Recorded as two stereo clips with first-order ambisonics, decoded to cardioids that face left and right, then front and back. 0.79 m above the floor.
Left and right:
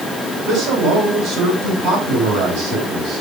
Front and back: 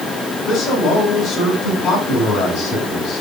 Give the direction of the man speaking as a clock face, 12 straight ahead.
2 o'clock.